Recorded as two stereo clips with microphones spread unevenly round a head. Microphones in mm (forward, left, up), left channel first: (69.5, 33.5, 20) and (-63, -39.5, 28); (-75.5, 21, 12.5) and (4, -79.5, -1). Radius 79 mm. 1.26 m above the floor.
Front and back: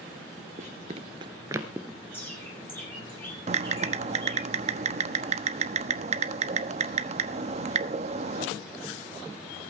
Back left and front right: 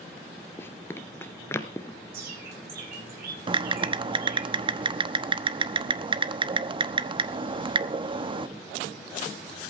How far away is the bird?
About 10 m.